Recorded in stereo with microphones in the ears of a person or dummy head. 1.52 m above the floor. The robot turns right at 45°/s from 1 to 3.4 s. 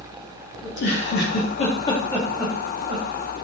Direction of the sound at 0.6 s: 60° left (ahead or behind).